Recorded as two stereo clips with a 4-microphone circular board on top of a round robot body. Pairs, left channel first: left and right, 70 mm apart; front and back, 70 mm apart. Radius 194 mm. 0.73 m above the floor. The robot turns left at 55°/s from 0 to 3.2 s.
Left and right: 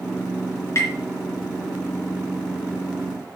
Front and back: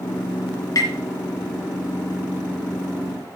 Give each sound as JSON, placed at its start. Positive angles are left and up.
{"t": 0.8, "sound": "tapping", "azimuth_deg": 40, "distance_m": 3.5}